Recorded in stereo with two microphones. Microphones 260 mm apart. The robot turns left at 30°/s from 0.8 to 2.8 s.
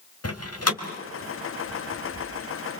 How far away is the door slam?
About 2.5 m.